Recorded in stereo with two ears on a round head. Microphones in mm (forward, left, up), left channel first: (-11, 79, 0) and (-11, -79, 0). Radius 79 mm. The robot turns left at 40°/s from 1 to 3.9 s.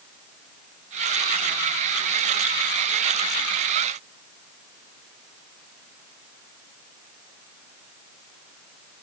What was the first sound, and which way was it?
Only background noise.